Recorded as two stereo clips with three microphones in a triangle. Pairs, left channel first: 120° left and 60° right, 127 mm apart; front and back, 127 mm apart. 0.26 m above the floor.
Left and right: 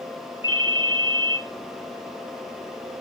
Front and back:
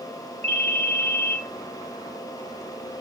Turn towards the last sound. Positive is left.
turn(degrees=165)